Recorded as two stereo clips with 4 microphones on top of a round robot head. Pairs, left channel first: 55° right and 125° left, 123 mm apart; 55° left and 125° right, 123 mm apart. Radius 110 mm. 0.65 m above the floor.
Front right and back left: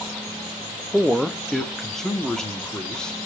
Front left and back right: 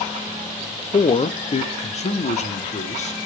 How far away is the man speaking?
About 0.8 m.